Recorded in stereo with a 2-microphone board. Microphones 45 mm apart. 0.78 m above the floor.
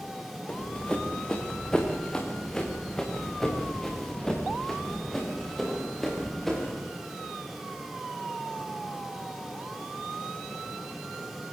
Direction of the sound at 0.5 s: 20° left (ahead or behind).